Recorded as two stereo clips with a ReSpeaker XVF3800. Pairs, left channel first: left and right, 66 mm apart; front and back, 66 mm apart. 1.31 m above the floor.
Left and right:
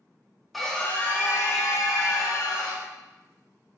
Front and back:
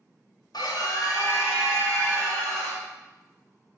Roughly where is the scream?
Ahead.